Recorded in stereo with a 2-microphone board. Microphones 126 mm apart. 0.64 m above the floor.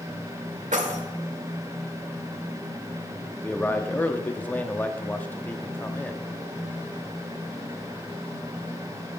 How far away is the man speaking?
About 0.8 m.